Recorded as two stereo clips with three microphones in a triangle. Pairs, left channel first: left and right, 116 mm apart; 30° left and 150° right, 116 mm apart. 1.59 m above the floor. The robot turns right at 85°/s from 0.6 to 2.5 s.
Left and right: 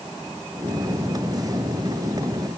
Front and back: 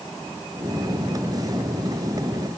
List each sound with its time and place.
Only background noise.